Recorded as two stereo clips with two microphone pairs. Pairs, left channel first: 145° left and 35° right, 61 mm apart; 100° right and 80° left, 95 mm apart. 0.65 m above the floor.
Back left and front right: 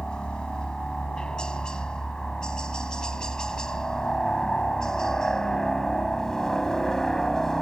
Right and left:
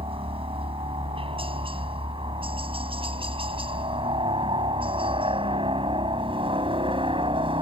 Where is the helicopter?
70° left; by 7.6 s 65° left.